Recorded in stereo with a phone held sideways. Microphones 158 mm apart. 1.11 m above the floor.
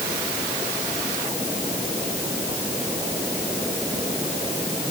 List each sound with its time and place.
Only background noise.